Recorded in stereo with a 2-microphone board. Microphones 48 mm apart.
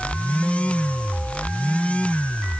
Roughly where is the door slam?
I don't hear a door slam.